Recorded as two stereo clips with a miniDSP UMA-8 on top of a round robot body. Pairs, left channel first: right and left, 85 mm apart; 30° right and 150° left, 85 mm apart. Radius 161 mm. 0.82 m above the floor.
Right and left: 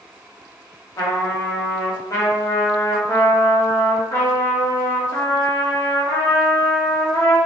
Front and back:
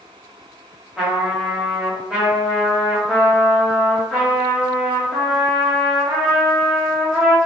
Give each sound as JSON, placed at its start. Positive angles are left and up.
{"t": 1.0, "sound": "a trumpet", "azimuth_deg": -130, "distance_m": 1.2}